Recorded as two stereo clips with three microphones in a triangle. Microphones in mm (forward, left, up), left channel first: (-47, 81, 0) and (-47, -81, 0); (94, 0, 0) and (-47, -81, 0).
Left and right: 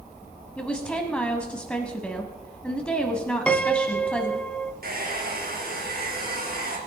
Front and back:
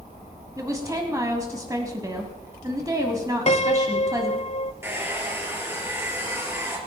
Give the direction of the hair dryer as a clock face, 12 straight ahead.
2 o'clock.